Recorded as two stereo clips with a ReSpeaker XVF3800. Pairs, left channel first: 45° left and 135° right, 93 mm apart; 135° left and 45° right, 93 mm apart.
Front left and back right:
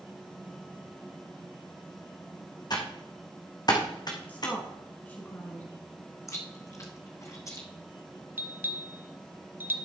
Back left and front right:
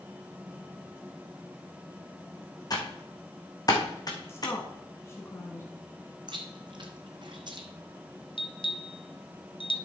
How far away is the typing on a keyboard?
About 1.8 m.